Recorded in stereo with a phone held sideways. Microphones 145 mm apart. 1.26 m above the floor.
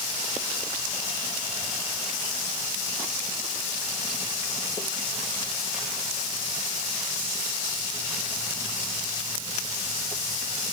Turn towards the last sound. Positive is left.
No sound to turn to.